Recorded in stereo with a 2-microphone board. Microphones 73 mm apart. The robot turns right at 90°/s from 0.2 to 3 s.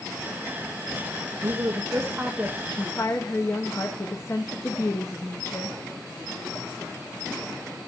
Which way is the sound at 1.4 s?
95° right.